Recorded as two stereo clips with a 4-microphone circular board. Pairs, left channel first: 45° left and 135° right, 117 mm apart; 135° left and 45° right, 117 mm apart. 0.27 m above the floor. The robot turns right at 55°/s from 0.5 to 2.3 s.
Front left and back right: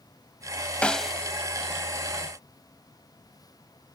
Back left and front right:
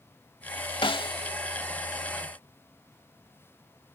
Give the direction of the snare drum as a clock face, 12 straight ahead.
8 o'clock.